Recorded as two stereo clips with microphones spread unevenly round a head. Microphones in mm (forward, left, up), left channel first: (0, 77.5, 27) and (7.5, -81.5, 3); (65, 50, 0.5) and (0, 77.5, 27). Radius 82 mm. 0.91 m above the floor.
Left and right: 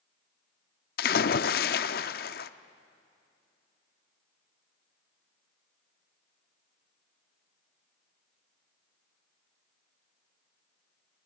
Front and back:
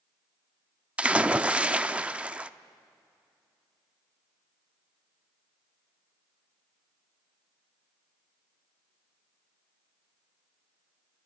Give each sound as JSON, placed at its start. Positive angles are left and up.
{"t": 1.0, "sound": "a splash", "azimuth_deg": 95, "distance_m": 0.6}